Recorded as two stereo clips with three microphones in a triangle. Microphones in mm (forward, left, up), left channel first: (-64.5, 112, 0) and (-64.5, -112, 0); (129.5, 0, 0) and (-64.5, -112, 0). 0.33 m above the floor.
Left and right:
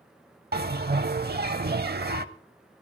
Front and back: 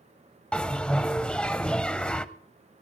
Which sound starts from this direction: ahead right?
A bell, at 0.5 s.